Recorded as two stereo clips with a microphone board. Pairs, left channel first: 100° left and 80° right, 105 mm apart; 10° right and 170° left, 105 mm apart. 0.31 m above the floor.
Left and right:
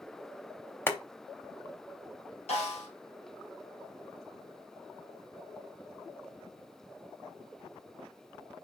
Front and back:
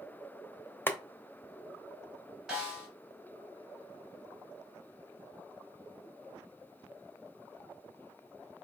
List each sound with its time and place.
0.9 s boiling: 45° left, 0.7 m
2.5 s a snare drum: 85° left, 3 m